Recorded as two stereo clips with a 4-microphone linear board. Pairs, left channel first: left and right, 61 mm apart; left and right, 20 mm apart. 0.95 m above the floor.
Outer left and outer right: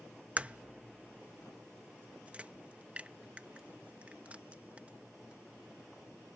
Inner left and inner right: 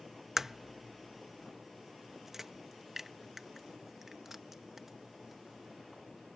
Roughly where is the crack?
Right.